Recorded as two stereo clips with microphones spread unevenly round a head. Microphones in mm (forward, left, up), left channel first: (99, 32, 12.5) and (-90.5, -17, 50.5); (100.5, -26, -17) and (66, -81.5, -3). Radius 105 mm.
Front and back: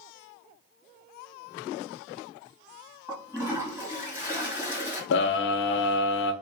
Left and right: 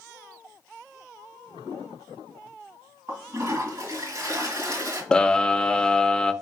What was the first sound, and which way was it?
A toilet flushing, 85° right.